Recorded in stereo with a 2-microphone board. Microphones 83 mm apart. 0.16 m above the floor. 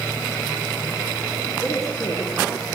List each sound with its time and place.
1.6 s a woman speaking: 40° left (ahead or behind), 10 m